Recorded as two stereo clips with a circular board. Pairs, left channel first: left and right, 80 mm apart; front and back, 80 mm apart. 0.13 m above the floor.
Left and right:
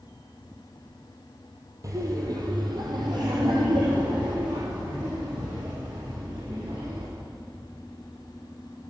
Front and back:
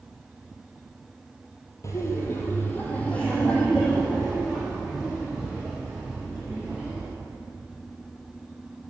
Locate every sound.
1.8 s laughter: 45° right, 3.5 m; by 7.0 s 95° right, 9 m